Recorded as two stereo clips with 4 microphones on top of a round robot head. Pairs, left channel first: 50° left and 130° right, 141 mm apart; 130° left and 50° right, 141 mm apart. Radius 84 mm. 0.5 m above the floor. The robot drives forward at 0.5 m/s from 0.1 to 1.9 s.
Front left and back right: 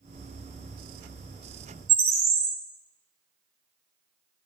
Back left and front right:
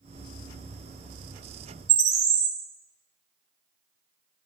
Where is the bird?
80° right, 1.3 m.